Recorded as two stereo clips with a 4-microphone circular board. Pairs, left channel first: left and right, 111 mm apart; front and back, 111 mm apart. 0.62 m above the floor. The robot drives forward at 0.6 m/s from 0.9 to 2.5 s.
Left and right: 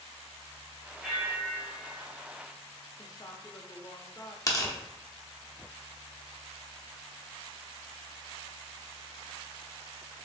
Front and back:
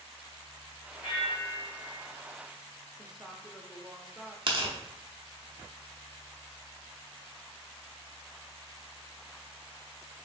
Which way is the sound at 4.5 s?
145° left.